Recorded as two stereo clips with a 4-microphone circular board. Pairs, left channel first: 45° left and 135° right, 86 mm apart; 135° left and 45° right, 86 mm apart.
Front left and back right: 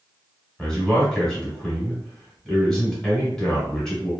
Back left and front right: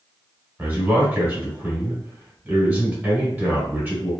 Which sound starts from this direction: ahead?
A man speaking, at 0.6 s.